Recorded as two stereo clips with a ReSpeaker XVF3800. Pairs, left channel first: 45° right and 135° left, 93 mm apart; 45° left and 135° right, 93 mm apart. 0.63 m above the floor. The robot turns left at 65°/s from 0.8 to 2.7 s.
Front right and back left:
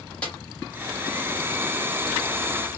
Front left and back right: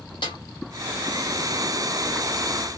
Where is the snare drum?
30° left, 2.0 m.